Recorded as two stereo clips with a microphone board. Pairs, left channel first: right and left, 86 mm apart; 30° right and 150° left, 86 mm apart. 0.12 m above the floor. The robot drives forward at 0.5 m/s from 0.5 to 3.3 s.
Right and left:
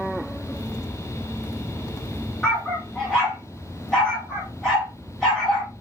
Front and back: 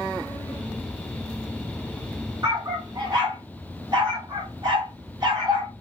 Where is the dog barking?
175° right, 5 m.